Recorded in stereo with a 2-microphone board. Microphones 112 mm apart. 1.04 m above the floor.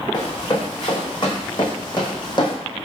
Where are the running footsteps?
40° left (ahead or behind), 3 m.